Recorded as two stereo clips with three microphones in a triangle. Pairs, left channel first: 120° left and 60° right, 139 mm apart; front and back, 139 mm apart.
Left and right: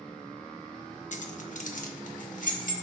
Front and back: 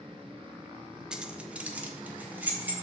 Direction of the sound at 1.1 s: 95° left.